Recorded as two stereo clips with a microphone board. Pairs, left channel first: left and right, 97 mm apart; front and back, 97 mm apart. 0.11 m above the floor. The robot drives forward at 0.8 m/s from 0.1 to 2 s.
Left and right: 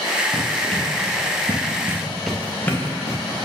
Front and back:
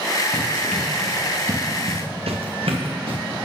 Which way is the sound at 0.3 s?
65° right.